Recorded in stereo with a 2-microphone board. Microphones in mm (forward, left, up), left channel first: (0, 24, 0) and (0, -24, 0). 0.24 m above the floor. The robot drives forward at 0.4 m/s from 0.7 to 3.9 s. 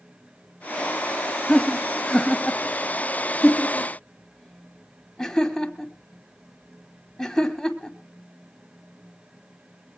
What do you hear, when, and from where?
1.5 s laughter: 15° left (ahead or behind), 1.0 m